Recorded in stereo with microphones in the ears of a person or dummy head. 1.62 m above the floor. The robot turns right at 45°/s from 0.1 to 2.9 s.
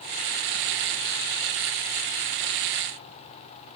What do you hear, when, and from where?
Only background noise.